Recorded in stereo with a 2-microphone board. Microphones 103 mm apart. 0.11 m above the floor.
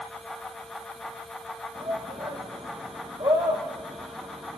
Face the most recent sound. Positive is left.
turn(degrees=-50)  # may be behind; listen again after turning